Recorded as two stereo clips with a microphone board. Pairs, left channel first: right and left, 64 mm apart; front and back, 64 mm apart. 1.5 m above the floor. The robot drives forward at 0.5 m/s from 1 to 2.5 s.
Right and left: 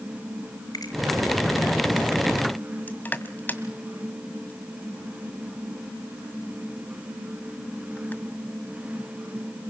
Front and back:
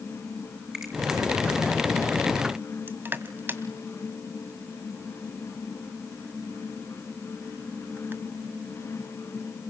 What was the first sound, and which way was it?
A finger snap, 100° right.